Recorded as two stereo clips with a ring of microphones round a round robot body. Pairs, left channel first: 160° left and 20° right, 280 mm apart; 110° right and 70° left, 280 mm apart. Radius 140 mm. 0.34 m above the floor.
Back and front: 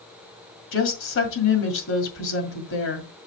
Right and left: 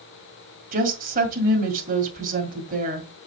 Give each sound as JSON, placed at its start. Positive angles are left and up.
{"t": 0.7, "sound": "a woman speaking", "azimuth_deg": 125, "distance_m": 2.0}